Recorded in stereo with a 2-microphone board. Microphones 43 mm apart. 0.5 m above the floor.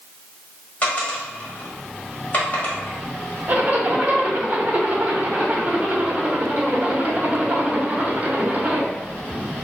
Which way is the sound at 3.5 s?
35° right (ahead or behind).